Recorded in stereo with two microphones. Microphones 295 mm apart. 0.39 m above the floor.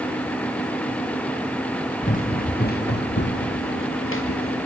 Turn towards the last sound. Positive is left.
turn(degrees=50)  # may be behind; listen again after turning